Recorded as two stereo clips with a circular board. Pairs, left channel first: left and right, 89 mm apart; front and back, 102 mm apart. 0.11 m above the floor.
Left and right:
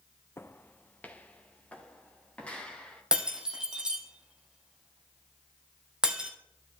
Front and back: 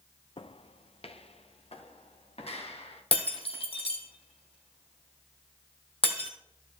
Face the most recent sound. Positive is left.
turn(degrees=-10)